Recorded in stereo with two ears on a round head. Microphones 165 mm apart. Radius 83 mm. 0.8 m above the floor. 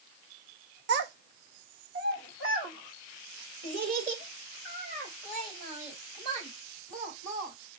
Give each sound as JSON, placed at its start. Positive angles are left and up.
{"t": 0.9, "sound": "a child speaking", "side_deg": -60, "distance_m": 0.6}